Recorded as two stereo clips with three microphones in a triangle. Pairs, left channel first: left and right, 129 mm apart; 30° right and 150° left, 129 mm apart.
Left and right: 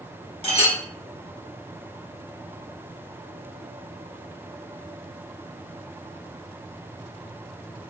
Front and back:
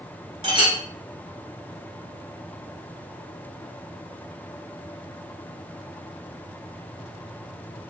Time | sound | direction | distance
0.4 | a clink | 115° left | 1.2 m